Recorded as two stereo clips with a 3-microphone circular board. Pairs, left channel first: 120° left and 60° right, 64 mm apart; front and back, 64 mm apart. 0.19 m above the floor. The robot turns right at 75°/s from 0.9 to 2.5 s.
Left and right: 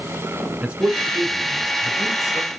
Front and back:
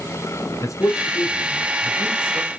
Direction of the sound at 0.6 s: 10° left.